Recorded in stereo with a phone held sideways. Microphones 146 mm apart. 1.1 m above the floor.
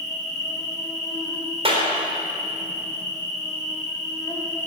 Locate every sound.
0.0 s an insect: 25° left (ahead or behind), 2.5 m
1.6 s a clap: 40° right (ahead or behind), 3.5 m